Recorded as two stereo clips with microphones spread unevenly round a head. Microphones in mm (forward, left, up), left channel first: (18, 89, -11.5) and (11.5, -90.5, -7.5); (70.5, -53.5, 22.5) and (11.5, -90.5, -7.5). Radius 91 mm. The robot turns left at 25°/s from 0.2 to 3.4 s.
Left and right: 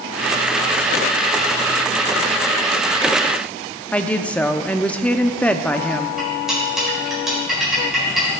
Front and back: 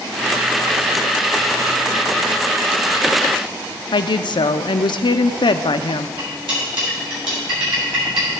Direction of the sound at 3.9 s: 5° left.